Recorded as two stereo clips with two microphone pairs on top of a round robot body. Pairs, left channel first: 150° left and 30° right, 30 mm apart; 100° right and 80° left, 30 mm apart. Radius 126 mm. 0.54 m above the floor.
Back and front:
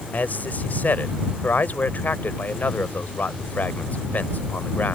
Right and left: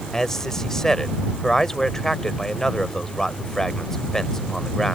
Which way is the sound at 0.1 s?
Straight behind.